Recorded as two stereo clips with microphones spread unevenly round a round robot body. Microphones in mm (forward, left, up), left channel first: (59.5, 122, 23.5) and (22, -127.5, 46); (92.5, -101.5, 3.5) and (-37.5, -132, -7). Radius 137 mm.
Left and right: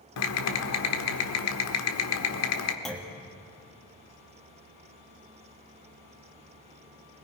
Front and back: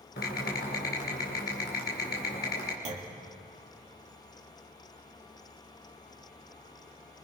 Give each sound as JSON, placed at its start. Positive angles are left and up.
{"t": 0.2, "sound": "typing on a keyboard", "azimuth_deg": 55, "distance_m": 1.5}
{"t": 2.9, "sound": "a clunk", "azimuth_deg": 165, "distance_m": 1.4}